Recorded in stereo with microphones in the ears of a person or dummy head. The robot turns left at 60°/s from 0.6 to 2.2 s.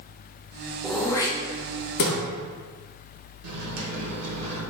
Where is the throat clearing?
5° left (ahead or behind), 0.6 m; by 2.2 s 60° left (ahead or behind), 0.6 m.